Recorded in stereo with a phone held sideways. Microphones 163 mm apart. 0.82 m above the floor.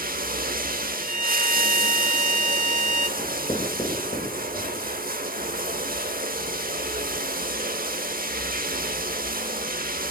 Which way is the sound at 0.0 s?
60° right (ahead or behind).